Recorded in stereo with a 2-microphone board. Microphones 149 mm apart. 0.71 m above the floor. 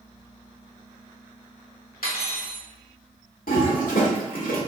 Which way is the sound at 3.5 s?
75° left (ahead or behind).